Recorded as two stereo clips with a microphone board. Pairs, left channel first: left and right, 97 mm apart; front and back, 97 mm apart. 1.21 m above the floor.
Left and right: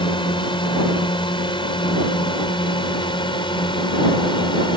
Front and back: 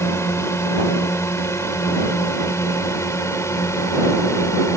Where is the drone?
60° left.